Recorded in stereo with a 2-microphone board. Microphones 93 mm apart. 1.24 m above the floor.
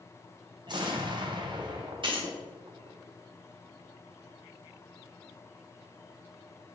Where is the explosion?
50° right (ahead or behind), 0.6 m.